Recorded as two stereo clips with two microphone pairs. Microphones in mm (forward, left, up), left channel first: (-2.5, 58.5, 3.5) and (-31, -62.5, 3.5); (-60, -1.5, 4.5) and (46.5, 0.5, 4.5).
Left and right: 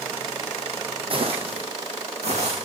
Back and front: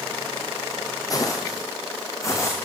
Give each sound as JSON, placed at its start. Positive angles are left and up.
{"t": 1.1, "sound": "footsteps", "azimuth_deg": -130, "distance_m": 2.0}